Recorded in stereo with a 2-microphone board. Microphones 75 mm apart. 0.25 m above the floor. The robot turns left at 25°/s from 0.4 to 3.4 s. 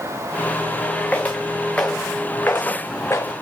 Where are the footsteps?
20° left (ahead or behind), 1.1 m; by 3.3 s 35° left (ahead or behind), 0.8 m.